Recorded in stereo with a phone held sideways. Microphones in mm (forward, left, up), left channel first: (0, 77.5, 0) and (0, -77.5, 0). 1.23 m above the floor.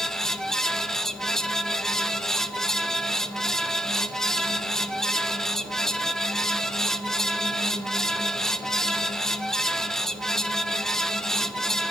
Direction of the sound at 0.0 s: 5° left (ahead or behind).